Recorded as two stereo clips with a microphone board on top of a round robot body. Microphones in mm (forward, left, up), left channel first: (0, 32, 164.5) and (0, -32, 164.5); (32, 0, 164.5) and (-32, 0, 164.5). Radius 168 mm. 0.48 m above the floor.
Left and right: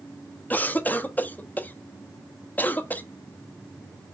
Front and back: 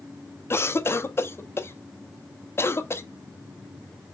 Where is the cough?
35° left, 1.5 m.